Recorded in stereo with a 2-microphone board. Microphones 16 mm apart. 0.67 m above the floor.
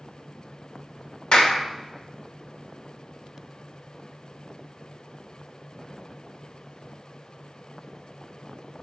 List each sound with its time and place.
1.3 s a clap: 70° left (ahead or behind), 2 m